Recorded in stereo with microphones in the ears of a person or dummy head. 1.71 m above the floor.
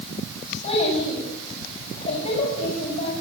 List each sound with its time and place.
0.6 s a child speaking: 35° left (ahead or behind), 9.5 m